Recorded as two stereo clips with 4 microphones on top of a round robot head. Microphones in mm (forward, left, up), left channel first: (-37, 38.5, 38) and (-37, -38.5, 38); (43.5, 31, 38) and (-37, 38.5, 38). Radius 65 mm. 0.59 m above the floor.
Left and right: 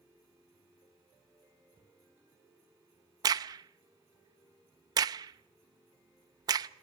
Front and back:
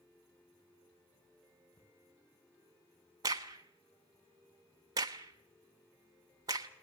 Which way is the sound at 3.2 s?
130° right.